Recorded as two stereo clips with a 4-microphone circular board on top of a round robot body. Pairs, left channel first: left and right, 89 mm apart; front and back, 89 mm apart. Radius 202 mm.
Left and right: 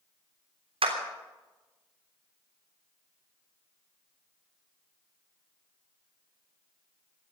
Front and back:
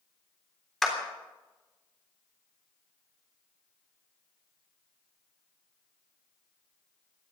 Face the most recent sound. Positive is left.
turn(degrees=-85)